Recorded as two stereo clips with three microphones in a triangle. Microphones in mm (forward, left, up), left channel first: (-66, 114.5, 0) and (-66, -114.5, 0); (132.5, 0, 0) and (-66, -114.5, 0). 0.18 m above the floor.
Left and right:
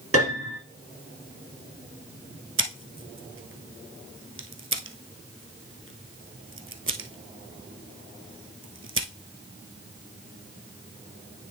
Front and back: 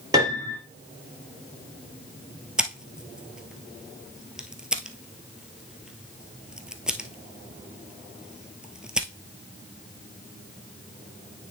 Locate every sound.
0.1 s a piano: 75° right, 3 m
2.6 s scissors: 65° right, 0.9 m